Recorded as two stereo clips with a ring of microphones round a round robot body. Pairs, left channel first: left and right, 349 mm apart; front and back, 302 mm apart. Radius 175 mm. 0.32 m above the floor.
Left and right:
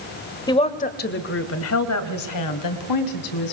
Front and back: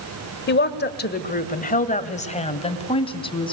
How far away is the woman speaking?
About 1.5 m.